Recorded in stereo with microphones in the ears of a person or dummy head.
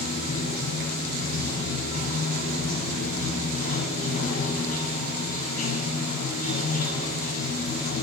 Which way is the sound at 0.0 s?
45° left (ahead or behind).